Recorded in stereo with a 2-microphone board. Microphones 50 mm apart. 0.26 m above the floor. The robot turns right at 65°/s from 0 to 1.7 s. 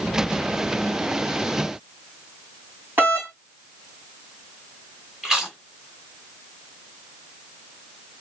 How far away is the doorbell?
About 2.5 m.